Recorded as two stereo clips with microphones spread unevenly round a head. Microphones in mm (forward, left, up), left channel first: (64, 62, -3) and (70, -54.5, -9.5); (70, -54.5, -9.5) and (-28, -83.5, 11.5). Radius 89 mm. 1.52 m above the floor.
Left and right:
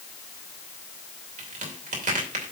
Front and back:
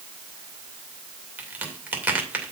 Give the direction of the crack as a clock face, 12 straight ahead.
3 o'clock.